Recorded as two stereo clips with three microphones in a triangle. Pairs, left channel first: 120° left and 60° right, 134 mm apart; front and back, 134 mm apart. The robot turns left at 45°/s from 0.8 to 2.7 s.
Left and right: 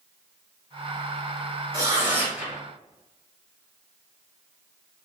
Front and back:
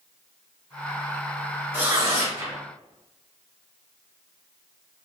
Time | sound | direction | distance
1.7 | tearing paper | 105° right | 1.8 m